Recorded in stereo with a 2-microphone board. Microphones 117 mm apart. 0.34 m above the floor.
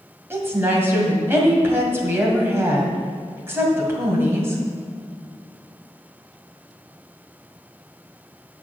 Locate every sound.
0.3 s a woman speaking: 20° right (ahead or behind), 2 m